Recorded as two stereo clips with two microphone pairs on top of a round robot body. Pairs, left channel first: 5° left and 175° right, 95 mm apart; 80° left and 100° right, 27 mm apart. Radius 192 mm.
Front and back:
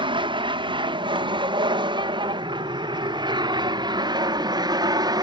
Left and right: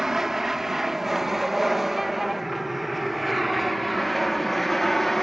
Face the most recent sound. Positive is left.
turn(degrees=165)